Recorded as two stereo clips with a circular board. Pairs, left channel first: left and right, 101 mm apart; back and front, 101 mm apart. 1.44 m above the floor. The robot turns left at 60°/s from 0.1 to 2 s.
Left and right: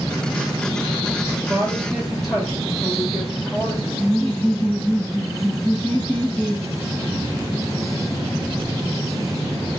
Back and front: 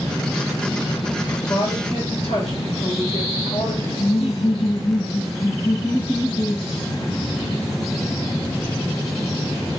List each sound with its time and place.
1.4 s a woman speaking: 150° right, 1.2 m; by 3.9 s 175° left, 1.2 m
4.0 s laughter: 175° left, 1.6 m